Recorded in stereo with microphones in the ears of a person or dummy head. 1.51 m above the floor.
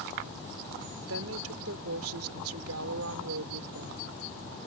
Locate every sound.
1.1 s a woman speaking: 85° right